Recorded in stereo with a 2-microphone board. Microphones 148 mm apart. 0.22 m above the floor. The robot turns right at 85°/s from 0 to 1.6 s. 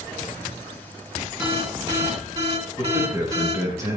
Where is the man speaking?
20° right (ahead or behind), 3.5 m.